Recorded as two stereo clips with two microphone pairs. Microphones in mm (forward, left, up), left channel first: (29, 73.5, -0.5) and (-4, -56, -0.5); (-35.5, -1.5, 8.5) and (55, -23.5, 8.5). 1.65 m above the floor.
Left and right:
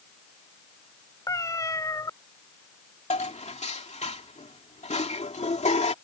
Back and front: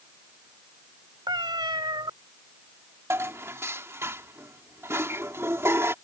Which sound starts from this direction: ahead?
A cat meowing, at 1.3 s.